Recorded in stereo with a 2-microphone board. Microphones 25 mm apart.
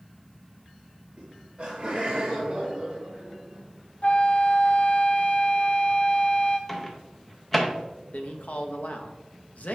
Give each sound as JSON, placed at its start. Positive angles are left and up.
{"t": 1.2, "sound": "laughter", "side_deg": -25, "distance_m": 1.1}
{"t": 4.0, "sound": "a flute", "side_deg": 65, "distance_m": 0.9}
{"t": 6.7, "sound": "a microwave", "side_deg": 10, "distance_m": 0.8}
{"t": 8.1, "sound": "a man speaking", "side_deg": 70, "distance_m": 0.9}